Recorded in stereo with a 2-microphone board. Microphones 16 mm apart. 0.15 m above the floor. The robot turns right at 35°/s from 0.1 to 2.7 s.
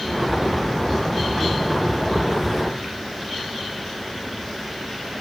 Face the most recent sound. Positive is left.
No sound to turn to.